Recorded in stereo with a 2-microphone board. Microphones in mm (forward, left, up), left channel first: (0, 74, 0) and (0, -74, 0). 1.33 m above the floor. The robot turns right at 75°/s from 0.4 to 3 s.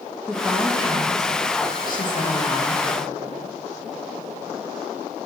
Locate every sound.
0.2 s a woman speaking: 5° right, 2 m; by 2.9 s straight behind, 2 m